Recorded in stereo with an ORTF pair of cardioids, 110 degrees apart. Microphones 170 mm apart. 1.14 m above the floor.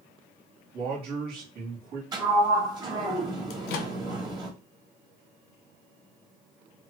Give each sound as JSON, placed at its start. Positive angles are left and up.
{"t": 0.7, "sound": "a man speaking", "azimuth_deg": -65, "distance_m": 1.8}
{"t": 2.1, "sound": "a sliding door", "azimuth_deg": -25, "distance_m": 1.3}
{"t": 3.5, "sound": "a microwave", "azimuth_deg": 70, "distance_m": 0.6}